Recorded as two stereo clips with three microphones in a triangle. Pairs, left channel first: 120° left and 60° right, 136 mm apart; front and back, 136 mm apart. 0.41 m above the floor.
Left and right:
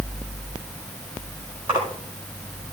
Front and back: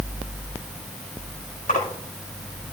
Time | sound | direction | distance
1.7 | a splash | 10° right | 6.5 m